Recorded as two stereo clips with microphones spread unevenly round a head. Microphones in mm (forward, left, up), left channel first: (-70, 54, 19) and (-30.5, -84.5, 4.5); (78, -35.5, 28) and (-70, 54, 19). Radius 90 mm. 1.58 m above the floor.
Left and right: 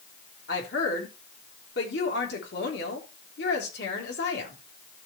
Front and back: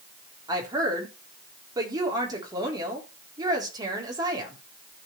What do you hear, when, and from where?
0.5 s a woman speaking: 80° left, 3.5 m